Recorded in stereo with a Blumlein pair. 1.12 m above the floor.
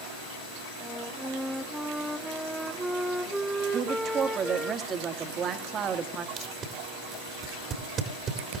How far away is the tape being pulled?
About 2 m.